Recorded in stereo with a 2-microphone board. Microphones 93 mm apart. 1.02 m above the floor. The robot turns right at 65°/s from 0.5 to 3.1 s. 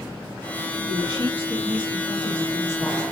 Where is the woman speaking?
120° right, 2.0 m; by 3.0 s 20° left, 2.0 m.